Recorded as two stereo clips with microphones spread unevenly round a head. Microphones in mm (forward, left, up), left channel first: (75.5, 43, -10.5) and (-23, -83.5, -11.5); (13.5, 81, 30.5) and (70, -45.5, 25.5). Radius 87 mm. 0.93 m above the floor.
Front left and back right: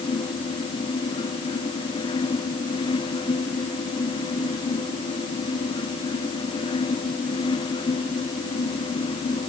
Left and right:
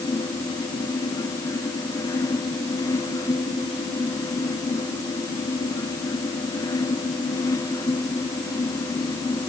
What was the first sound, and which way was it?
Only background noise.